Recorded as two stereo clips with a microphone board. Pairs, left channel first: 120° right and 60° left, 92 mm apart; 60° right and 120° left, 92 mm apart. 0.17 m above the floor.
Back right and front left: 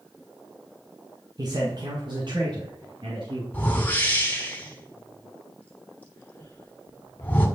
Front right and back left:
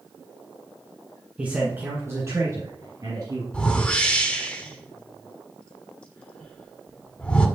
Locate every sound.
1.4 s a man speaking: 50° left, 1.5 m; by 3.4 s 85° left, 2.5 m
3.5 s a whoosh: 105° right, 1.2 m